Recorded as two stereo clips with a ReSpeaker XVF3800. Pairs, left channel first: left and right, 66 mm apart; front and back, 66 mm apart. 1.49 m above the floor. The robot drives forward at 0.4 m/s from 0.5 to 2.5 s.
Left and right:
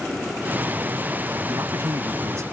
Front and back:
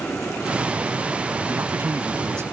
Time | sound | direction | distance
1.5 | a man speaking | 130° right | ?